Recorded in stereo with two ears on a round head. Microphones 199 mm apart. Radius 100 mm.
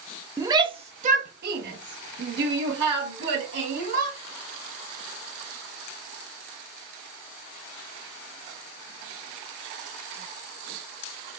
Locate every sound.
0.4 s a shout: 15° right (ahead or behind), 0.8 m; by 4.2 s 50° right (ahead or behind), 2 m